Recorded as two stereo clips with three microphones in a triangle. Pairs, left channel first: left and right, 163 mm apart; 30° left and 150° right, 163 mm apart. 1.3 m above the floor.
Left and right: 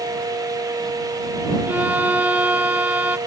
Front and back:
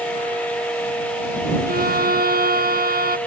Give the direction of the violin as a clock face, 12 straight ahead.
6 o'clock.